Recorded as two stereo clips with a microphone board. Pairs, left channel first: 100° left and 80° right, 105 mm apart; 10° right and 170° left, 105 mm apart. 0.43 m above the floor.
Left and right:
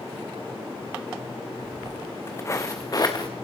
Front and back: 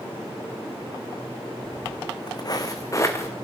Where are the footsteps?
20° left, 1.9 m; by 3.3 s 50° left, 2.5 m.